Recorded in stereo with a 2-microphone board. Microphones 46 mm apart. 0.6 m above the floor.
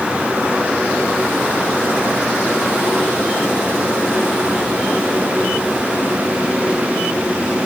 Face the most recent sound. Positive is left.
No sound to turn to.